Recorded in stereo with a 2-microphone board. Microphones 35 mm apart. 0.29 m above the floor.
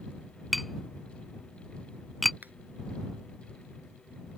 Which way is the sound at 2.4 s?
55° right (ahead or behind).